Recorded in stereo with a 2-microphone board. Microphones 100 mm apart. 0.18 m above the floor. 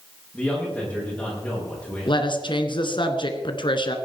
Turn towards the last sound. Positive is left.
turn(degrees=55)  # may be behind; listen again after turning